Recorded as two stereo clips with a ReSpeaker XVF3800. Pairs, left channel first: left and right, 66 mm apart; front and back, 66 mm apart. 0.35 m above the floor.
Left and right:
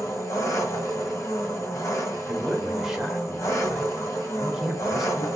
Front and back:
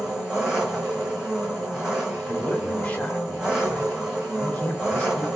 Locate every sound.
0.0 s an engine running: 100° left, 1.8 m
2.3 s a man speaking: 15° right, 0.9 m